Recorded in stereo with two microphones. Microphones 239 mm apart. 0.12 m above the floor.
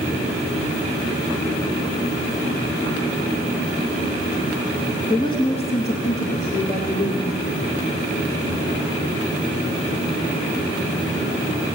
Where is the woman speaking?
15° left (ahead or behind), 1.3 m; by 7.3 s 40° left (ahead or behind), 2.5 m.